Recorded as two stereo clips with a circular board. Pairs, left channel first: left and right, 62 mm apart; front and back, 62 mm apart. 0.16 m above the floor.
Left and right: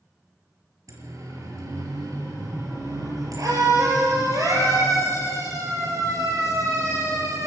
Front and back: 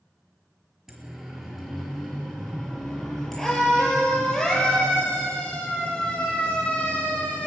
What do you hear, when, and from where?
0.9 s a siren: 95° right, 4.5 m; by 7.5 s 70° right, 7.5 m